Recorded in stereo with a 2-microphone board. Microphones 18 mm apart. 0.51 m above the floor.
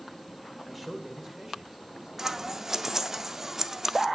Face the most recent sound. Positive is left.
turn(degrees=-25)  # may be behind; listen again after turning